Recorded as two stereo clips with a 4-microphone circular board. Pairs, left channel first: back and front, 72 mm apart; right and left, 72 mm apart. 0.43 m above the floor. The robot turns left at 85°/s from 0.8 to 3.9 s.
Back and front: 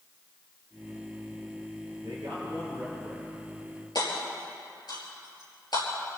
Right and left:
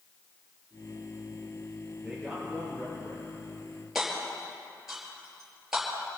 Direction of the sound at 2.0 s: 15° left.